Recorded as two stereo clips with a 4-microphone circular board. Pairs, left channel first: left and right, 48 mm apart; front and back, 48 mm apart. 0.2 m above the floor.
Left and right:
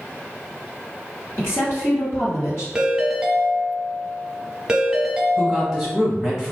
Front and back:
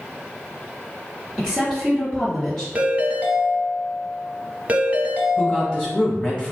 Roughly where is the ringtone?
Behind right.